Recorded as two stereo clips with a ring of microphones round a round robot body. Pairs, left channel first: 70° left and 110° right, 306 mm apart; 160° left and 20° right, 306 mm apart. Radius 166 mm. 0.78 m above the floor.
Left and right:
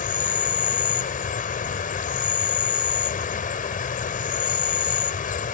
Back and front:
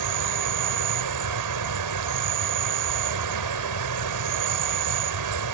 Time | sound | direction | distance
0.0 | an insect | straight ahead | ?